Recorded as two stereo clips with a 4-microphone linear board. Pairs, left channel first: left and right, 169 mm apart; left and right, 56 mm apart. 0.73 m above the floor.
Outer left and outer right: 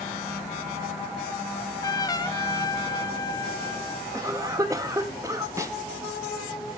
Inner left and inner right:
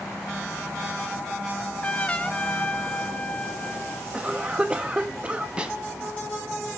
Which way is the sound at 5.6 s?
20° right (ahead or behind).